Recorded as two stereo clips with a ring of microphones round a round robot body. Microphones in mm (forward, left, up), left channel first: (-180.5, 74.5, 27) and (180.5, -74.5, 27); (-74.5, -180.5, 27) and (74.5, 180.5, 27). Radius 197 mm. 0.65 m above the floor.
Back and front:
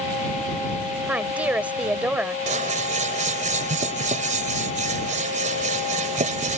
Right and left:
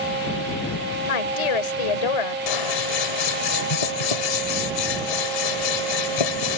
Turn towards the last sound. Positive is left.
turn(degrees=-95)